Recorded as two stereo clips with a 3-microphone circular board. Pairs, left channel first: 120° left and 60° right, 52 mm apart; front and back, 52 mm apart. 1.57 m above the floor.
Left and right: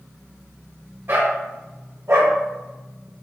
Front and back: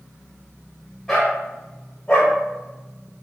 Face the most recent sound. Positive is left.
turn(degrees=-50)